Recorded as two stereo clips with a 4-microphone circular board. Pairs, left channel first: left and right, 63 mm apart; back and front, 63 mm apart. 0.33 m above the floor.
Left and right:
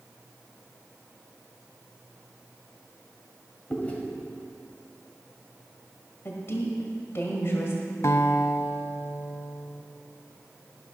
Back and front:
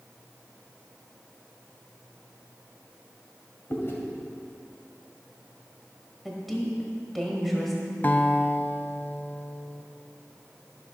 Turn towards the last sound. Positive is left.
turn(degrees=125)